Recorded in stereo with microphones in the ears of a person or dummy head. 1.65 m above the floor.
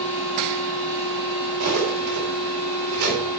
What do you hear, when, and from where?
1.6 s cutlery clinking: 45° right (ahead or behind), 3.5 m